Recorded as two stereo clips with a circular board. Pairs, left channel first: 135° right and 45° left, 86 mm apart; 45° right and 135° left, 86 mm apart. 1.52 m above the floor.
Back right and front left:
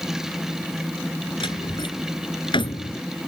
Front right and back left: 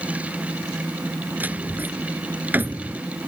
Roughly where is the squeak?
No squeak in this recording.